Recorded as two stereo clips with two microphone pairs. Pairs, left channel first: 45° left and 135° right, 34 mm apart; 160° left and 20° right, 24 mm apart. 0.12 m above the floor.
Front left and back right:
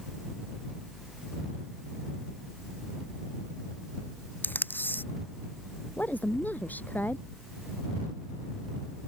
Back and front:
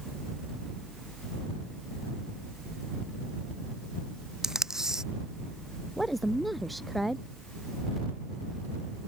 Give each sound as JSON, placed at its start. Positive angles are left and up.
{"t": 4.4, "sound": "tape being pulled", "azimuth_deg": 45}
{"t": 6.0, "sound": "a woman speaking", "azimuth_deg": 70}